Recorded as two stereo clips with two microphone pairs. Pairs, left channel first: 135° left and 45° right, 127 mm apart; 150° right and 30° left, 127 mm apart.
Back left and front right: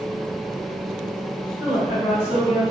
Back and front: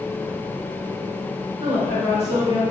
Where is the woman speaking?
5° right, 1.4 m; by 2.6 s 30° left, 1.3 m.